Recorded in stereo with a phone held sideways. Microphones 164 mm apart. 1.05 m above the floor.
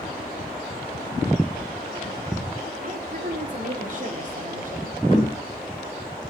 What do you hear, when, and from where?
2.8 s a woman speaking: 55° right (ahead or behind), 3 m
5.1 s knocking: 40° left (ahead or behind), 5 m